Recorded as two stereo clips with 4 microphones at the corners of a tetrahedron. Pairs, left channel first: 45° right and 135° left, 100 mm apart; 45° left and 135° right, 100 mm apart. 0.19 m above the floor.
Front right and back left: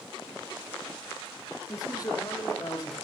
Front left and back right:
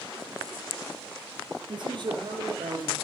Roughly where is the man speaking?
Right.